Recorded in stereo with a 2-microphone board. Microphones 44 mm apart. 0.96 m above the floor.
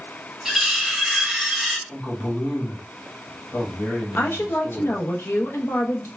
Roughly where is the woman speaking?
Left.